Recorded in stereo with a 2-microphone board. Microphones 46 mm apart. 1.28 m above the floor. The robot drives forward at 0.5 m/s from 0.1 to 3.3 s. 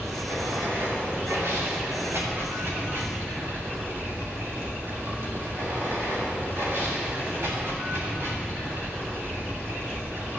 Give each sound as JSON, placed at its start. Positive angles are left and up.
{"t": 0.0, "sound": "running water", "side_deg": -80, "distance_m": 3.0}